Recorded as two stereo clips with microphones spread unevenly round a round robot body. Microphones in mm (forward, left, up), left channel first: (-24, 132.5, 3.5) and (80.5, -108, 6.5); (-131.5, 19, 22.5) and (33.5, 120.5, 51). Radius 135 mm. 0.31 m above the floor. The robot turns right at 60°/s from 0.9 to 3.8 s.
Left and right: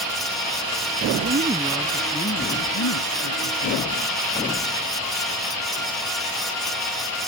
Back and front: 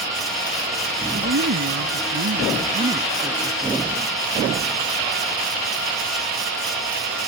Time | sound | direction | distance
1.1 | a woman speaking | 15° right | ?